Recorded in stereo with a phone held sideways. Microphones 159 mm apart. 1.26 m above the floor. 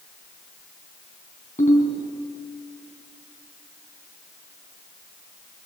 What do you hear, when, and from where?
1.6 s a ringtone: 50° left (ahead or behind), 5 m